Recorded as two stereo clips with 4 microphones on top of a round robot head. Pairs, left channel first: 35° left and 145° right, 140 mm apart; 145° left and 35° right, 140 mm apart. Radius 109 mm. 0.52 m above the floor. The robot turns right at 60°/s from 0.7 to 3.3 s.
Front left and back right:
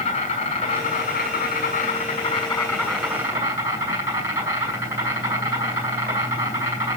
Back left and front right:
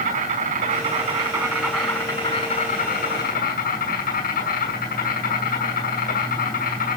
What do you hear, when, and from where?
0.0 s an insect: 10° right, 5 m; by 7.0 s 145° left, 5 m